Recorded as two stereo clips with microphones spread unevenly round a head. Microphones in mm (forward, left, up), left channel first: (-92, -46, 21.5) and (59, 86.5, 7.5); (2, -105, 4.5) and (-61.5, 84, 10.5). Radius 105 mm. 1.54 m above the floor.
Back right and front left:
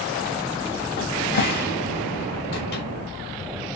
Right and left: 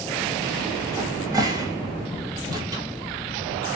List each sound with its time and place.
1.0 s a cupboard door: straight behind, 0.6 m